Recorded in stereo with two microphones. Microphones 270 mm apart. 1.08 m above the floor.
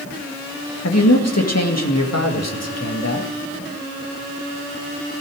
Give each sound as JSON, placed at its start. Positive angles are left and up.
{"t": 0.8, "sound": "a man speaking", "side_deg": 70, "distance_m": 1.9}